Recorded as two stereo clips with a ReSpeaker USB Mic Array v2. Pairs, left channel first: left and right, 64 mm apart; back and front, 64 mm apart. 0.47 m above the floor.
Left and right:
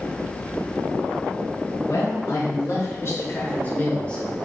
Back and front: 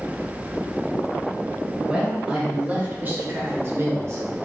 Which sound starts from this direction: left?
A man speaking, at 1.9 s.